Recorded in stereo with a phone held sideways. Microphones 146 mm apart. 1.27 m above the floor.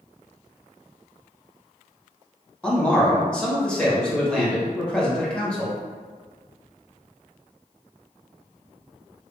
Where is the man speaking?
5° left (ahead or behind), 0.9 m.